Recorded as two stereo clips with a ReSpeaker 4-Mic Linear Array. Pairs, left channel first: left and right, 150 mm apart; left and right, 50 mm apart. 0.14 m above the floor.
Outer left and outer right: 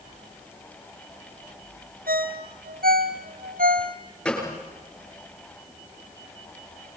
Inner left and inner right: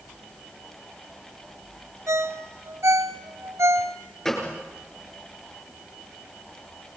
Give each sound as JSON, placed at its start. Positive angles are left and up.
{"t": 2.1, "sound": "a ringtone", "side_deg": -75, "distance_m": 1.5}
{"t": 4.2, "sound": "a gunshot", "side_deg": 5, "distance_m": 8.0}